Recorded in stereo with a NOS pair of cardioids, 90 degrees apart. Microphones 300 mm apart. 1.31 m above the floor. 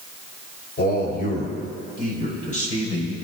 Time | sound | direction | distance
0.8 | a man speaking | 35° left | 5 m